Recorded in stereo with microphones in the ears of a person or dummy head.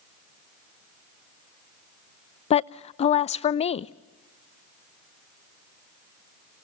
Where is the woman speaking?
35° left (ahead or behind), 0.5 m.